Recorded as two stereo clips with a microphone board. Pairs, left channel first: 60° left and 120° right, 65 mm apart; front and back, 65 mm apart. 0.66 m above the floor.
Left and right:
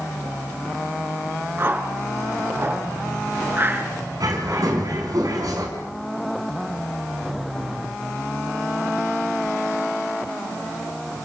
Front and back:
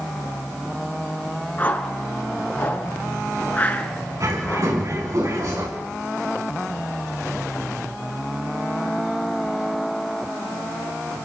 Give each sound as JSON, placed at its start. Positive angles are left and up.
{"t": 1.6, "sound": "a whoosh", "azimuth_deg": -65, "distance_m": 2.5}
{"t": 4.2, "sound": "a bird", "azimuth_deg": -145, "distance_m": 4.5}